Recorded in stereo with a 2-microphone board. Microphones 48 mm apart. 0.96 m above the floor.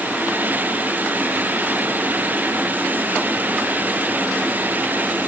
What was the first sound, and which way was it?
Only background noise.